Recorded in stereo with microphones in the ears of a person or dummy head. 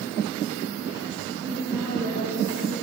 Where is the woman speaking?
10° right (ahead or behind), 6 m; by 2.7 s 20° right (ahead or behind), 6 m.